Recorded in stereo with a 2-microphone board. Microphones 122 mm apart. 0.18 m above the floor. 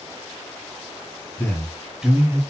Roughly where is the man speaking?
Left.